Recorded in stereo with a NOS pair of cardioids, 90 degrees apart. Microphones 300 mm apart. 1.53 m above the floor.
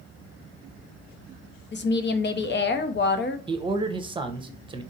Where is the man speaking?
15° right, 0.9 m.